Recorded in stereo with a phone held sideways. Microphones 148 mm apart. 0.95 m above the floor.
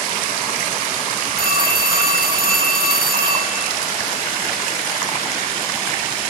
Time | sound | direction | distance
1.4 | a phone ringing | 85° right | 3.5 m